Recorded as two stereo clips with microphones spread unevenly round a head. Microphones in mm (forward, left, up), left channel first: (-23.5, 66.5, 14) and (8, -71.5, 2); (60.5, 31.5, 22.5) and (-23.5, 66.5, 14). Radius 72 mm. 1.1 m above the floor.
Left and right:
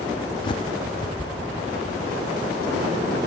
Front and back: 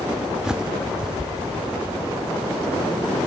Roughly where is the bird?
Left.